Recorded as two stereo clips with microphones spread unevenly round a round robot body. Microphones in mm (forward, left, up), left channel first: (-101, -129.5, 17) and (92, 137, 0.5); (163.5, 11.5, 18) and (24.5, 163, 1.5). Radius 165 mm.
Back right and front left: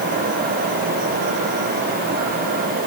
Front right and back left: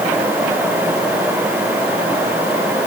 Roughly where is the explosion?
No explosion in this recording.